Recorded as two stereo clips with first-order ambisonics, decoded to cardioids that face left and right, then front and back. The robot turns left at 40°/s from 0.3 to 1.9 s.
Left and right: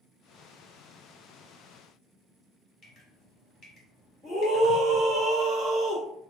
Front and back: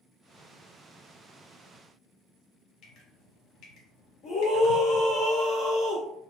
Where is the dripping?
30° left, 1.1 m.